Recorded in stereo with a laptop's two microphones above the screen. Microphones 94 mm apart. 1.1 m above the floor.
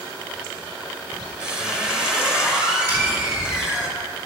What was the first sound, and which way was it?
A squeak, 10° right (ahead or behind).